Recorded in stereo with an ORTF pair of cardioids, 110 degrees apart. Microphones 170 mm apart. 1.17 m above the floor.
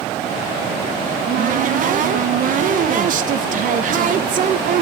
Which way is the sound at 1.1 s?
50° right.